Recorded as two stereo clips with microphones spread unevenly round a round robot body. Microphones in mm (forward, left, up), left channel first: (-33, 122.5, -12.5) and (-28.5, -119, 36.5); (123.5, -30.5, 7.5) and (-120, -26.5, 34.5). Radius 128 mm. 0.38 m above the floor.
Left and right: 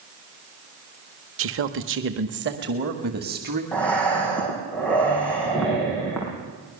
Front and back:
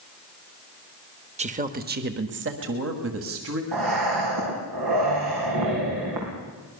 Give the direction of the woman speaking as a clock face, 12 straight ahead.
4 o'clock.